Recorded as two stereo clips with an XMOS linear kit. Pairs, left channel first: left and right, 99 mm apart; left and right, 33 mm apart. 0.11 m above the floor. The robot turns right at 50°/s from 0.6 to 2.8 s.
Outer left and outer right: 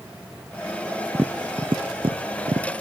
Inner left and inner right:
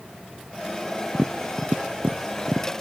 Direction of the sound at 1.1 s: 20° right (ahead or behind).